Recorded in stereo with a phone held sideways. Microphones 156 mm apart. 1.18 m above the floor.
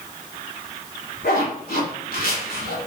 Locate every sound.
1.2 s a zipper: 75° left (ahead or behind), 2.5 m